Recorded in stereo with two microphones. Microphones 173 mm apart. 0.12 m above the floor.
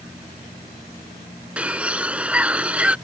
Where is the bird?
5° right (ahead or behind).